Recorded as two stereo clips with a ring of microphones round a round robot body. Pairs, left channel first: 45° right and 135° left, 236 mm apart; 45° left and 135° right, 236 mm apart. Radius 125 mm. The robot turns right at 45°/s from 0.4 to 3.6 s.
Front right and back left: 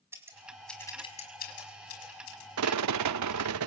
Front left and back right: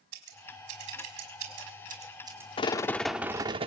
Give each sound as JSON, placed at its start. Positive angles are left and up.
{"t": 0.1, "sound": "scissors", "azimuth_deg": -145, "distance_m": 4.5}
{"t": 2.6, "sound": "a rattle", "azimuth_deg": 110, "distance_m": 0.6}